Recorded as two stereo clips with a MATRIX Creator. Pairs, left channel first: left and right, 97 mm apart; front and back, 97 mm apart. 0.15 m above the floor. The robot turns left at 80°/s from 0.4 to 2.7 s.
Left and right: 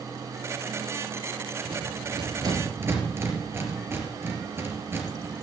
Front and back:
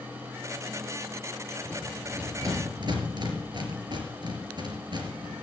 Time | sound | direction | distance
1.6 | a rattle | 65° right | 3.5 m